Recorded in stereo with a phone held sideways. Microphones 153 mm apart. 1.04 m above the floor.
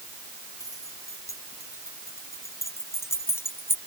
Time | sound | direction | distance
0.6 | keys jangling | 20° left (ahead or behind) | ?